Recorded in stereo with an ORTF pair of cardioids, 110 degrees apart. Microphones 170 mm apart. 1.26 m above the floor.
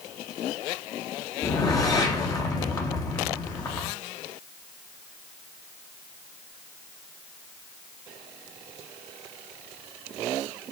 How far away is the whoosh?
About 1.1 m.